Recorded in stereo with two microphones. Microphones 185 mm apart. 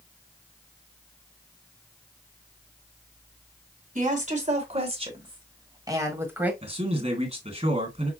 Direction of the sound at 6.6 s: 35° right (ahead or behind).